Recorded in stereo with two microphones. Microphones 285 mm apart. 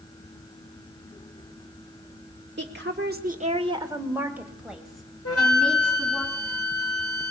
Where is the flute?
55° left (ahead or behind), 2 m.